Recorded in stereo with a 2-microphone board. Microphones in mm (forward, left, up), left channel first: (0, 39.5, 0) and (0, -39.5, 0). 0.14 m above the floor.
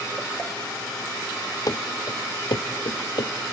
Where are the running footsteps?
50° left (ahead or behind), 1.0 m; by 3.3 s 85° left, 1.7 m.